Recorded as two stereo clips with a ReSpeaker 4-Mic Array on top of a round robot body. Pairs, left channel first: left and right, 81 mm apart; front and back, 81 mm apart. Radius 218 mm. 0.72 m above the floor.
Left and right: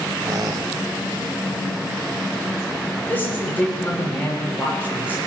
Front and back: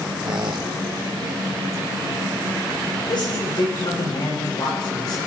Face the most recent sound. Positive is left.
turn(degrees=25)